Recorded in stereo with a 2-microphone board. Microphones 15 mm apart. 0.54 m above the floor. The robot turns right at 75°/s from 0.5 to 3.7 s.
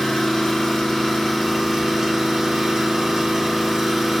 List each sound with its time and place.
0.0 s an engine running: 100° left, 1.7 m; by 4.2 s 20° right, 1.7 m